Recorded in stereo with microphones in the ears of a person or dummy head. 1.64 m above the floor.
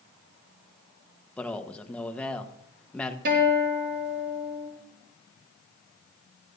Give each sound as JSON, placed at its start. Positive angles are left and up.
{"t": 1.4, "sound": "a man speaking", "side_deg": 5, "distance_m": 1.3}
{"t": 3.2, "sound": "a guitar", "side_deg": -55, "distance_m": 7.0}